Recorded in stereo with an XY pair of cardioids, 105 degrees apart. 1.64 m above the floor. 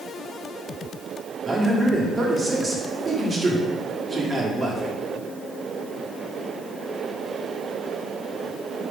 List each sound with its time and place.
1.4 s a man speaking: 30° right, 1.3 m